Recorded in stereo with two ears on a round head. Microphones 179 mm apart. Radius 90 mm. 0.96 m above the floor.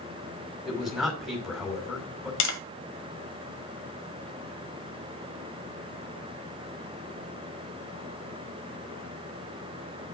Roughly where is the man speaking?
Centre.